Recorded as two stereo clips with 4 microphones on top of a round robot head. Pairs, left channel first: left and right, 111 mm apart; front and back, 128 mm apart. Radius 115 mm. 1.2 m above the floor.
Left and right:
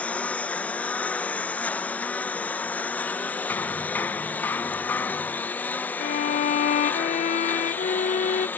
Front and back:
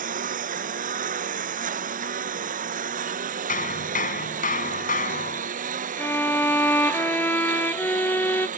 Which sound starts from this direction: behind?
A lawn mower, at 0.0 s.